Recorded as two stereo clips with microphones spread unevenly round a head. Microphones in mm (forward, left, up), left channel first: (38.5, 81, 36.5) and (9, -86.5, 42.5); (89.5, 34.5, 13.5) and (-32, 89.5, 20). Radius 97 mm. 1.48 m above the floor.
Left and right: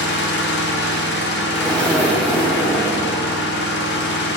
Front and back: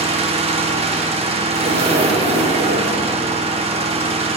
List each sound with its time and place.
0.0 s an engine running: 110° left, 1.0 m
1.5 s a zipper: 165° left, 1.2 m